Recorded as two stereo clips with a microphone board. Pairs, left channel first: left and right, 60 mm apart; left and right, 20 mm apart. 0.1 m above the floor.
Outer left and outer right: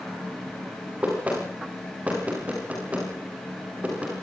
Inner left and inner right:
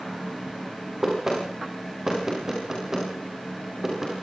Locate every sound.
1.0 s knocking: 25° right (ahead or behind), 9.5 m